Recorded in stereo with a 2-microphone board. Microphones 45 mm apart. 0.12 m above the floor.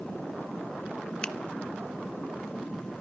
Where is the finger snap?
20° left (ahead or behind), 0.9 m.